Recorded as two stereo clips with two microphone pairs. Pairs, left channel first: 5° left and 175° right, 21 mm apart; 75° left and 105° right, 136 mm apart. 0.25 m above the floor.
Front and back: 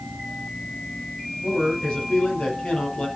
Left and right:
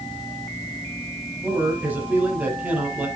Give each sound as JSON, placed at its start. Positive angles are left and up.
{"t": 1.4, "sound": "a man speaking", "azimuth_deg": -25, "distance_m": 7.5}